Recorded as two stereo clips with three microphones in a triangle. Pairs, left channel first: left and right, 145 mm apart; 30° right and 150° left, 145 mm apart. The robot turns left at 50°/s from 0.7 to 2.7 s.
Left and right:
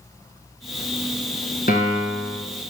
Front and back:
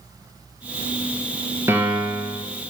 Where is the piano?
80° left, 1.0 m; by 2.4 s 40° left, 1.0 m.